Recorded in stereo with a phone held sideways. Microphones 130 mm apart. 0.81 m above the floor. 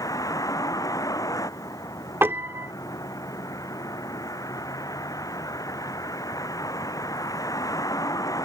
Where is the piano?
20° right (ahead or behind).